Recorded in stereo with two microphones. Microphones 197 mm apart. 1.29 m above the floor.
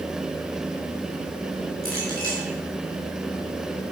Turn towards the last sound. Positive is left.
turn(degrees=-55)  # may be behind; listen again after turning